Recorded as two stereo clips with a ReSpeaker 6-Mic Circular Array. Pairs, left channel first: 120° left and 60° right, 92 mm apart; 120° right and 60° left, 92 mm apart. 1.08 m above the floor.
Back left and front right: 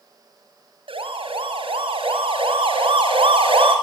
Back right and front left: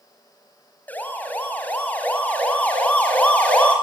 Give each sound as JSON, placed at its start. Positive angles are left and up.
{"t": 0.9, "sound": "a siren", "azimuth_deg": -50, "distance_m": 5.5}